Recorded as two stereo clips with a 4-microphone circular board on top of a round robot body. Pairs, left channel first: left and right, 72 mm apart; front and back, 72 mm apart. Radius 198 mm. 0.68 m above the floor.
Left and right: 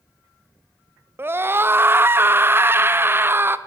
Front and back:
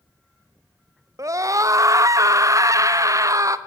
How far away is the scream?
About 1.1 m.